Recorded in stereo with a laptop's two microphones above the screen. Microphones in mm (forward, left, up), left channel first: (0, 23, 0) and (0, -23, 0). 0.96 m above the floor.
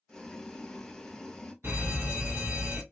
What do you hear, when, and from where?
0.1 s boiling: 15° left (ahead or behind), 0.7 m
1.6 s a fire alarm: 50° right (ahead or behind), 1.8 m